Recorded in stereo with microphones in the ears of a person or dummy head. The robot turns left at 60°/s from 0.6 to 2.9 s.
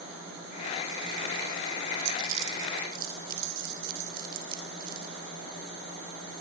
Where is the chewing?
75° right (ahead or behind), 4 m; by 5.1 s 60° right (ahead or behind), 4 m.